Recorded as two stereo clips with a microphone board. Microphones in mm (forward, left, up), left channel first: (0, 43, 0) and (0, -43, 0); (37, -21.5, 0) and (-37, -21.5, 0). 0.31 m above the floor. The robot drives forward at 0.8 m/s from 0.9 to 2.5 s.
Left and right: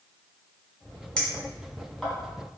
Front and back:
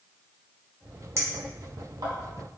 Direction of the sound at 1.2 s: 160° left.